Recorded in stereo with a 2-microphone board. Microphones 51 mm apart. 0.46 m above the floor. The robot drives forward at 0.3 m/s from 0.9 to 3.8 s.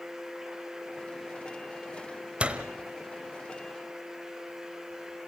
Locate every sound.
2.4 s a door slam: 20° right (ahead or behind), 1.4 m; by 2.6 s 25° right (ahead or behind), 1.3 m